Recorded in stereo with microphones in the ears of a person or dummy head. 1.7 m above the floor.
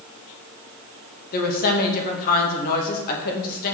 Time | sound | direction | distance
1.3 | a woman speaking | 60° left (ahead or behind) | 2 m